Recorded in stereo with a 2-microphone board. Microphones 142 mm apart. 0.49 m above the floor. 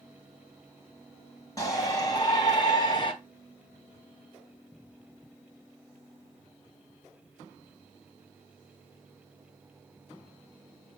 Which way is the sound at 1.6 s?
25° left (ahead or behind).